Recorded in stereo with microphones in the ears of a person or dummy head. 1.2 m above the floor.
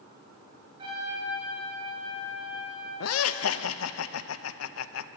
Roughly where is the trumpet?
Right.